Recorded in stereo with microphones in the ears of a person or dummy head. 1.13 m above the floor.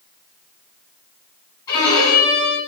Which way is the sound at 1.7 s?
20° left (ahead or behind).